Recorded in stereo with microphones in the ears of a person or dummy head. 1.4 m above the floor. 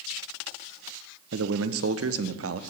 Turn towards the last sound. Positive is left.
turn(degrees=-75)  # may be behind; listen again after turning